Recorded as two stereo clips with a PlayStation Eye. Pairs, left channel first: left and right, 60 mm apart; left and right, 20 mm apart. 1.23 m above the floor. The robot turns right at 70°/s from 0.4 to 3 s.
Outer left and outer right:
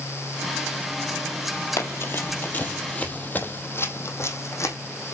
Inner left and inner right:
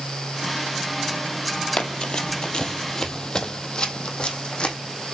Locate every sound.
1.8 s running footsteps: 45° left (ahead or behind), 1.9 m; by 4.8 s 55° left (ahead or behind), 3 m